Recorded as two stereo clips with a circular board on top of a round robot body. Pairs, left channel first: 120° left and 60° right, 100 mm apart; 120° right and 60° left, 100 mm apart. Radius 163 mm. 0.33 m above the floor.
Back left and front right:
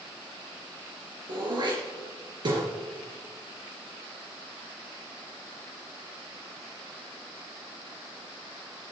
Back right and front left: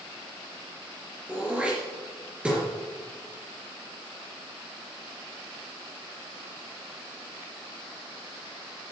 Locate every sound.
1.3 s throat clearing: 20° right, 4 m